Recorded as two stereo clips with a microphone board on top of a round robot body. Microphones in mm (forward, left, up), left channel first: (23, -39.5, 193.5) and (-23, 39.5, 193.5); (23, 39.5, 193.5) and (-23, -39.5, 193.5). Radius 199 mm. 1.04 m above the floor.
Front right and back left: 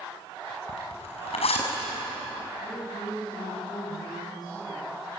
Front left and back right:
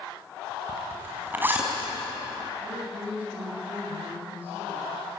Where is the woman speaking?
105° right, 9.5 m.